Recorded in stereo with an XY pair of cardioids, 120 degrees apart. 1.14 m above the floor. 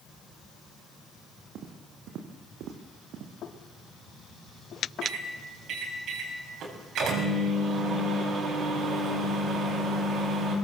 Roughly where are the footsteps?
Right.